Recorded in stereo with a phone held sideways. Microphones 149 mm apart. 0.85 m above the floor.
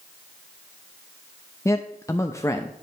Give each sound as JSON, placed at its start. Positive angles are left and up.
{"t": 1.6, "sound": "a man speaking", "side_deg": 20, "distance_m": 0.5}